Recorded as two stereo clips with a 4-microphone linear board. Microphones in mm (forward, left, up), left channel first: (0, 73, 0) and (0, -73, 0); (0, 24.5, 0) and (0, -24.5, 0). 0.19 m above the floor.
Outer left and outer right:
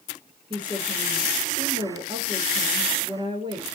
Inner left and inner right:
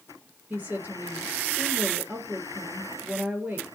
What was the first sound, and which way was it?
A woman speaking, 35° right (ahead or behind).